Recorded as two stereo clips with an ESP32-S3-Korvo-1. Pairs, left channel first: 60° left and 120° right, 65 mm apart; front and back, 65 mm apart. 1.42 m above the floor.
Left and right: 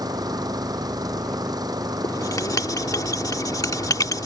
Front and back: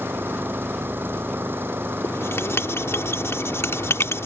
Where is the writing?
45° left.